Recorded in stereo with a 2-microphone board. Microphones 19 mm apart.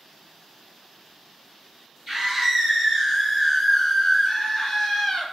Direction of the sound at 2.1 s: 25° right (ahead or behind).